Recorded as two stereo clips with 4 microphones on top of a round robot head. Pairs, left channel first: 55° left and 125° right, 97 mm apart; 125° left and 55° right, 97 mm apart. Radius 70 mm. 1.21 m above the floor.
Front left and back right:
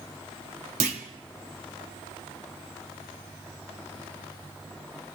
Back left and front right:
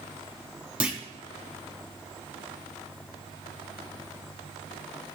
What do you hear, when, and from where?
0.8 s a clunk: 135° right, 1.1 m